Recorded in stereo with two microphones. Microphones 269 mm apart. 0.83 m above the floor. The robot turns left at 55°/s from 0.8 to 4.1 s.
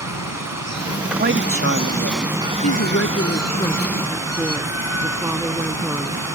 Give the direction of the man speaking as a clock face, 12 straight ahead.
1 o'clock.